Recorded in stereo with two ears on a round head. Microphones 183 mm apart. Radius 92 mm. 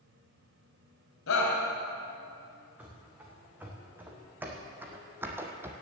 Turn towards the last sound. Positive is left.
turn(degrees=-10)  # may be behind; listen again after turning